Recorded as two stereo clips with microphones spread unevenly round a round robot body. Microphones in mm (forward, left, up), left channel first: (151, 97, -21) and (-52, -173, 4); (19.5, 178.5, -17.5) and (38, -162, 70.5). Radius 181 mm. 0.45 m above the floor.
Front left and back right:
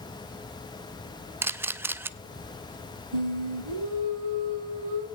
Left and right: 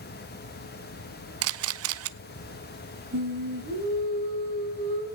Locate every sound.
1.4 s a camera shutter: 45° right, 0.7 m
3.1 s singing: 155° right, 3.5 m